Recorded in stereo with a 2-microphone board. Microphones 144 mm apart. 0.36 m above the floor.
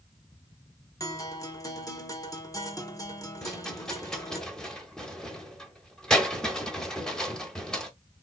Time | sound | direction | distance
1.0 | a guitar | 25° left (ahead or behind) | 0.8 m
3.4 | a rattle | 5° left (ahead or behind) | 0.8 m